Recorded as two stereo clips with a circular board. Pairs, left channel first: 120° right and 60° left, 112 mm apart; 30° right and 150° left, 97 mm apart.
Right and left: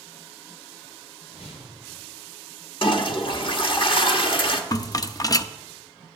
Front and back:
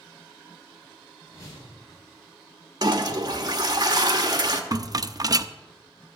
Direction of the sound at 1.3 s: 85° right.